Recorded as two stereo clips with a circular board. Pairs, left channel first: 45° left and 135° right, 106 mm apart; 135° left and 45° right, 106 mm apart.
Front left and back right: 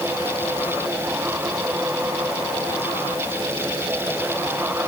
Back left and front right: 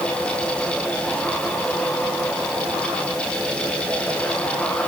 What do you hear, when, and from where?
Only background noise.